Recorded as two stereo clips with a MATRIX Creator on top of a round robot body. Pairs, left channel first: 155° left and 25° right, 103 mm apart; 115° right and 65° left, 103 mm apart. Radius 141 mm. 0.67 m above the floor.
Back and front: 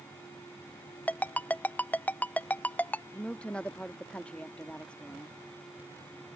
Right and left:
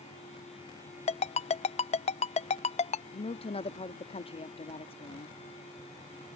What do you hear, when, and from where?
1.1 s a ringtone: 125° right
3.1 s a woman speaking: 125° right